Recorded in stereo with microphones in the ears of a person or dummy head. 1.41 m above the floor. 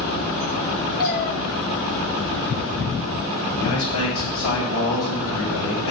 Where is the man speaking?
80° left, 6.5 m.